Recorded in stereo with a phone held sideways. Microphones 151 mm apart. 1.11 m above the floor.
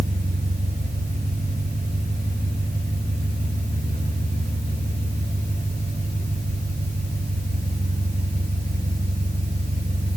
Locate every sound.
0.0 s an engine running: 70° right (ahead or behind), 6.5 m